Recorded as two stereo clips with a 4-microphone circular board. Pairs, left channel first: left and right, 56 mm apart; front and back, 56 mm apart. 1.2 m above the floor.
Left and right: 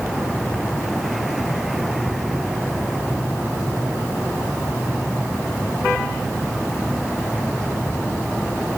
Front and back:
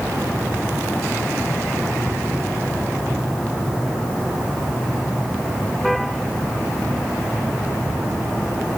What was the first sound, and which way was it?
Only background noise.